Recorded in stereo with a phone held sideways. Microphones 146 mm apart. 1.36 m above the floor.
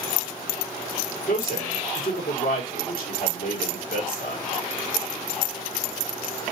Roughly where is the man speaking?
Left.